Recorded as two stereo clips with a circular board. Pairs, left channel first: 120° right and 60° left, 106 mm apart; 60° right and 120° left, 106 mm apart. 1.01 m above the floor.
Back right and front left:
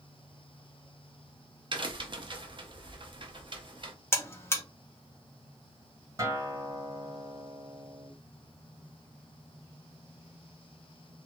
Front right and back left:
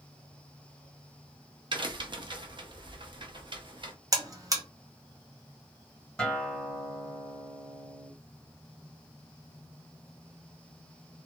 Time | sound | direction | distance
1.7 | a crack | 90° left | 0.5 m
4.1 | a buzzer | 175° left | 0.6 m
6.2 | a guitar | 20° left | 0.9 m